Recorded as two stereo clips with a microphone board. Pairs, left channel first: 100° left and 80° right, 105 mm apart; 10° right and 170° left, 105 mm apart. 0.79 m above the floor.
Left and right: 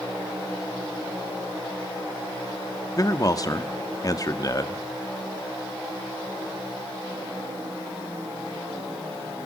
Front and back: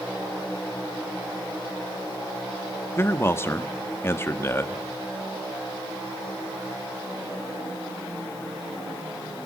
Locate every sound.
3.0 s a man speaking: 50° left, 1.2 m